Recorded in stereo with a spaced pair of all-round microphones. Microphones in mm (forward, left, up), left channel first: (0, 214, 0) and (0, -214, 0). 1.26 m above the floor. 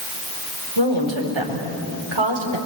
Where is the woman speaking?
85° right, 4.5 m.